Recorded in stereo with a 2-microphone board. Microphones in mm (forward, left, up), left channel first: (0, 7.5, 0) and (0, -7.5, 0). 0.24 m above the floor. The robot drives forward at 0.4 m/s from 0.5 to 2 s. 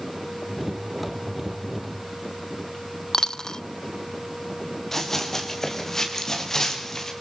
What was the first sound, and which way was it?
A dropped coin, 55° left (ahead or behind).